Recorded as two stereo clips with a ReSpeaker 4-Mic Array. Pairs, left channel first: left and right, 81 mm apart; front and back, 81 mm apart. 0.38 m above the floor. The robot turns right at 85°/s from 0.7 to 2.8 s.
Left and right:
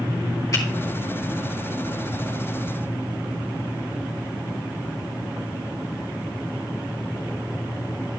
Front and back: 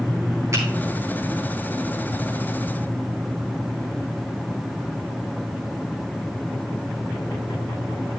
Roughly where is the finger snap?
Behind left.